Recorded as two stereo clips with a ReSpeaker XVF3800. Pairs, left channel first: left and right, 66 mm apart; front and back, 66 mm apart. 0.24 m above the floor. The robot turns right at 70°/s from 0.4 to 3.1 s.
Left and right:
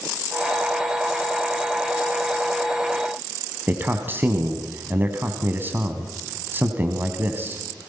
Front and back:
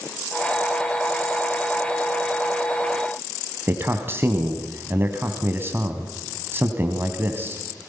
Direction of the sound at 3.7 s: 140° right.